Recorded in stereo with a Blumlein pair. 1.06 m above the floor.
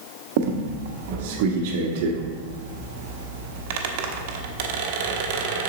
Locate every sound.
0.4 s a squeak: 50° right, 0.9 m